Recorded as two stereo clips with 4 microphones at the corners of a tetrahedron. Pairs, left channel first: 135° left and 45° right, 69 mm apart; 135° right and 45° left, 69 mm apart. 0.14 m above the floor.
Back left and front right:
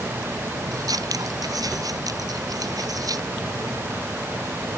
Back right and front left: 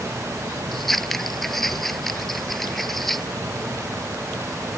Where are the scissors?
50° right.